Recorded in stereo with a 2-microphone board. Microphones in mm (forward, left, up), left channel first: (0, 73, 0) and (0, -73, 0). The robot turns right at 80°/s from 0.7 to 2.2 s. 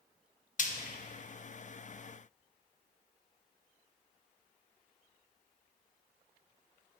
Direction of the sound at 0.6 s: 55° left (ahead or behind).